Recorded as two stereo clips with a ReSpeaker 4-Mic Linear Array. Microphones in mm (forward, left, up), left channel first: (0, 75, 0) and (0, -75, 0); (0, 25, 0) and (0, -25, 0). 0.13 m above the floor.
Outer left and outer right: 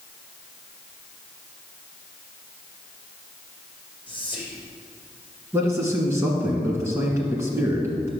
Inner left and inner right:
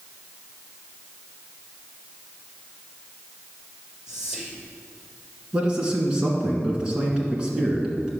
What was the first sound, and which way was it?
Whispering, 10° right (ahead or behind).